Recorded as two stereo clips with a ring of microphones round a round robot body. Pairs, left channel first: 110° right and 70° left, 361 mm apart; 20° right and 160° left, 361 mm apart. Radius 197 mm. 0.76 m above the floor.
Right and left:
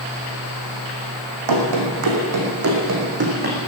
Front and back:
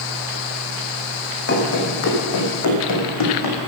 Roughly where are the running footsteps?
Ahead left.